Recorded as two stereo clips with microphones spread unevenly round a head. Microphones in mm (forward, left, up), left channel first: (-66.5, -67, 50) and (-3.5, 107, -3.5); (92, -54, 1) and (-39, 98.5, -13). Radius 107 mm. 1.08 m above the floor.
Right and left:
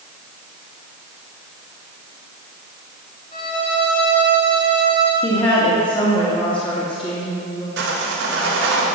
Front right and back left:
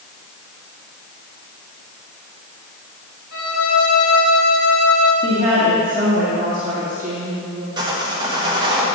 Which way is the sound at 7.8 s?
65° left.